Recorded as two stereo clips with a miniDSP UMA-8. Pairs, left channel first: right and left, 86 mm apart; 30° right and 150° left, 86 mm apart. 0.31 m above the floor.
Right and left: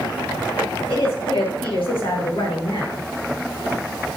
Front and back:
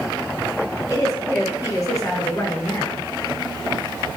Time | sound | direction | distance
0.9 | a woman speaking | 90° right | 7 m